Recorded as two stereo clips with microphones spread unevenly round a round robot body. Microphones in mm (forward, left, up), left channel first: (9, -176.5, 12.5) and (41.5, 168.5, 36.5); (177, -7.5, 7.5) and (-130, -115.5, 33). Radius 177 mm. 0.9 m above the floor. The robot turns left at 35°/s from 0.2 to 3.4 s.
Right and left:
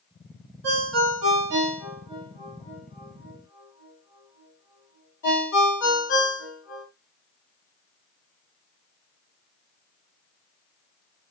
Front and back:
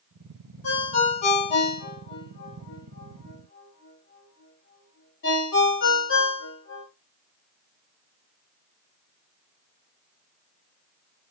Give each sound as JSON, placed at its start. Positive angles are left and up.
{"t": 0.6, "sound": "a ringtone", "azimuth_deg": 60, "distance_m": 1.3}